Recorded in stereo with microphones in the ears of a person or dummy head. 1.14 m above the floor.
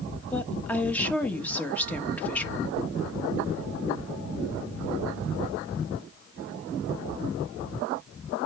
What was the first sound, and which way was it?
A woman speaking, 10° left (ahead or behind).